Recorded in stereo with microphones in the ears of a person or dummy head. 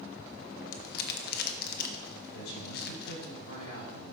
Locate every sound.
0.7 s crumpling: 55° left (ahead or behind), 1.0 m
2.3 s a man speaking: 85° left, 5 m